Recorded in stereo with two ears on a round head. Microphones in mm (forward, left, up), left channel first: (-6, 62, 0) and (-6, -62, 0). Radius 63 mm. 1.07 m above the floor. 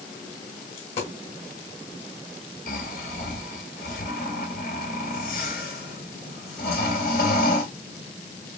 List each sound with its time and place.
0.8 s a dropped coin: 50° left (ahead or behind), 2.5 m
2.7 s snoring: 70° left (ahead or behind), 2 m